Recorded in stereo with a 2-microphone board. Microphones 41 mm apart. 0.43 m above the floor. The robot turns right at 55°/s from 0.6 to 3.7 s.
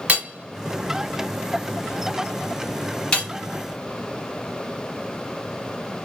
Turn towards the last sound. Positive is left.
turn(degrees=30)  # may be behind; listen again after turning